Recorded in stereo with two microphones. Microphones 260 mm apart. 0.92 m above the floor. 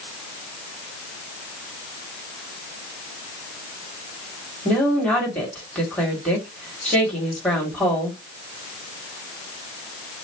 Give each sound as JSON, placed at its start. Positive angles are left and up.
{"t": 4.7, "sound": "a woman speaking", "side_deg": 5, "distance_m": 2.5}